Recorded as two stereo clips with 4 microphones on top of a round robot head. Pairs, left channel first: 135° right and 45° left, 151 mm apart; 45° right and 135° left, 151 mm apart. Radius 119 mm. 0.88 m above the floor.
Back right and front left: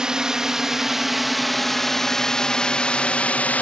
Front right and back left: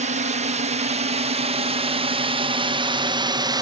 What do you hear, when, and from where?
0.0 s a drone: 130° left; by 3.6 s 155° left